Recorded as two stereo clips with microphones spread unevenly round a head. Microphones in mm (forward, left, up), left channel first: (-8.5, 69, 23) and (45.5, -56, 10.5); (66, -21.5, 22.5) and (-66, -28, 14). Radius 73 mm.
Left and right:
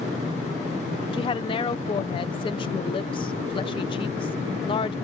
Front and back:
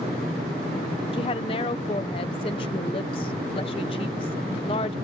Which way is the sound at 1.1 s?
60° left.